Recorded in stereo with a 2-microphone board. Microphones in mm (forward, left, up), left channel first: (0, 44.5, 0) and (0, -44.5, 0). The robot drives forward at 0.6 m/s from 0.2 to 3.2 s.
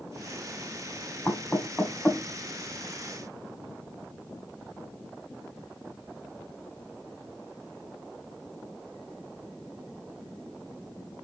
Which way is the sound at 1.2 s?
20° left (ahead or behind).